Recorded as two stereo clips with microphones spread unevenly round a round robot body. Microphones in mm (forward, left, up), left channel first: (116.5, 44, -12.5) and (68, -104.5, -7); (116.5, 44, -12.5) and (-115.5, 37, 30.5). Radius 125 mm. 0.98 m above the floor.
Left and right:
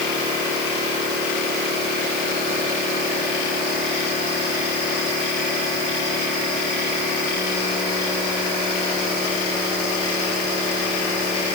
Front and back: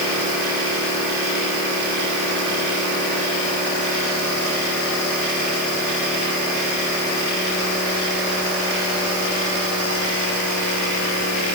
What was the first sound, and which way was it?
Only background noise.